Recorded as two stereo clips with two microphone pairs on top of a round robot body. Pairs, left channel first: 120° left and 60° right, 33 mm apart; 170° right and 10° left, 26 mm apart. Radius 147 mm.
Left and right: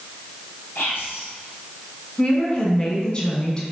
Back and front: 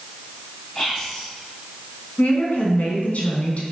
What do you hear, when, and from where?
0.8 s whispering: 115° left, 3 m
2.2 s a woman speaking: straight behind, 2.5 m